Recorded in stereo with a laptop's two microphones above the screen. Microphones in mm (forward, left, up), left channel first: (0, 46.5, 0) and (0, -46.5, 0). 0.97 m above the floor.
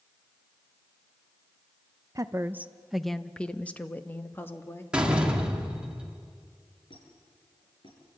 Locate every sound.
2.1 s a woman speaking: 40° right (ahead or behind), 0.6 m; by 4.8 s 25° left (ahead or behind), 1.9 m
4.9 s a door slam: 10° right (ahead or behind), 1.8 m
6.9 s a squeak: 70° left (ahead or behind), 6.5 m